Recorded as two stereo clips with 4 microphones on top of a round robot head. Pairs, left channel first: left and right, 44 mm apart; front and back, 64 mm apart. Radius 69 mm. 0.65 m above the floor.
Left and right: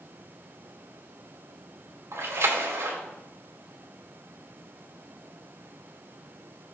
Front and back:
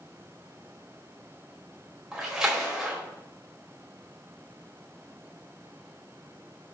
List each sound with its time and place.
2.1 s a splash: 100° right, 2.5 m